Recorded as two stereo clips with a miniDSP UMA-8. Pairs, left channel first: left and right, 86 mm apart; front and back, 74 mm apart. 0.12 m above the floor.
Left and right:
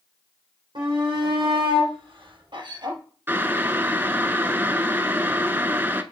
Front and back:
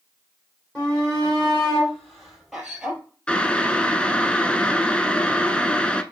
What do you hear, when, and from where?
0.8 s a shout: 80° right, 4.5 m; by 3.0 s 105° right, 2.5 m
3.3 s boiling: 60° right, 0.6 m